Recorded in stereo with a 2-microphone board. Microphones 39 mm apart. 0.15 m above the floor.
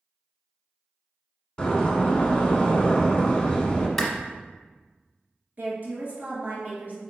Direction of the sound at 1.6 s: 20° left (ahead or behind).